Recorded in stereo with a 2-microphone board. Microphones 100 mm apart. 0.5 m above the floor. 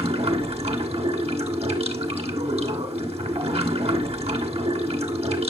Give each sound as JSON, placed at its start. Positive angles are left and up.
{"t": 0.0, "sound": "running water", "side_deg": -85, "distance_m": 1.3}